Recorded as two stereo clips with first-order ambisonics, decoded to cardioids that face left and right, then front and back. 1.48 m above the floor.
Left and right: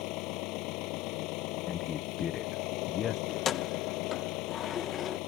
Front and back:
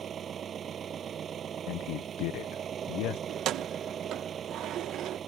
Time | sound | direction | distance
0.0 | an engine running | 120° left | ?
1.7 | a man speaking | 30° left | ?
3.3 | keys jangling | 145° left | ?